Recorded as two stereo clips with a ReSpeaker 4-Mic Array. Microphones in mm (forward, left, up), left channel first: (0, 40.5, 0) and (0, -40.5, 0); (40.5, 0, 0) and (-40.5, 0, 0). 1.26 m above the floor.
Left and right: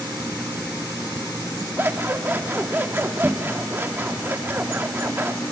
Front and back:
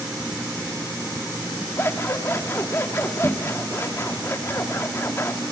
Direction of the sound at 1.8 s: 40° right.